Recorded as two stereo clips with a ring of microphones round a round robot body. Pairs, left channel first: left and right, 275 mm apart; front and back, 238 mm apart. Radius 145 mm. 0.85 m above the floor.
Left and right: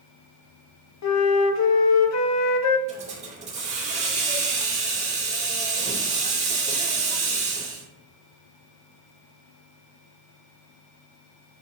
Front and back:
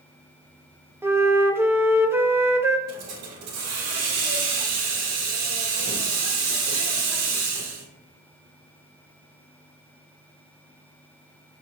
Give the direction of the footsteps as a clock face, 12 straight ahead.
I don't hear footsteps.